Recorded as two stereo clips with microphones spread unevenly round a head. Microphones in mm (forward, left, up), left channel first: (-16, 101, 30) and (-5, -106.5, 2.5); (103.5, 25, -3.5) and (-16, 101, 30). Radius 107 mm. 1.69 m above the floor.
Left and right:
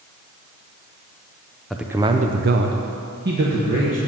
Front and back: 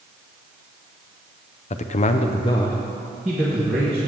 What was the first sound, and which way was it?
A man speaking, 10° left.